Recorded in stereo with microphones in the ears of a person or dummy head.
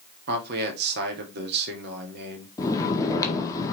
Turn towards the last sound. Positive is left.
turn(degrees=20)  # may be behind; listen again after turning